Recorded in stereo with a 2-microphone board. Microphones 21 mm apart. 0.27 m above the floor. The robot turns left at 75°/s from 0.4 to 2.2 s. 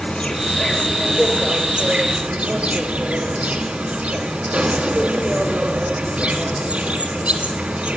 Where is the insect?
45° left, 2 m; by 8.0 s 90° right, 2 m.